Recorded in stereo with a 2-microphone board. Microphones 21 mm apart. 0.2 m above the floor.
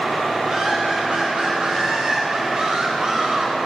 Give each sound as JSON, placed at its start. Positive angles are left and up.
{"t": 0.4, "sound": "laughter", "side_deg": -50, "distance_m": 2.5}